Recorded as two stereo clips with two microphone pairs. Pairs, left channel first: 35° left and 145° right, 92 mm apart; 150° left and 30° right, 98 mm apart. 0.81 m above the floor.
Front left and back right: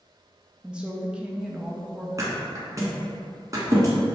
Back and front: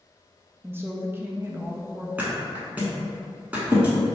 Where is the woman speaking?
70° right, 0.5 m.